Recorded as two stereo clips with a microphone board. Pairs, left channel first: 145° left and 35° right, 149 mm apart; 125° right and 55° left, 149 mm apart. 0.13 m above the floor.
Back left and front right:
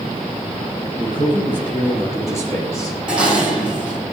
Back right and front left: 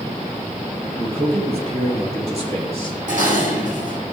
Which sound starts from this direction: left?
A man speaking, at 1.0 s.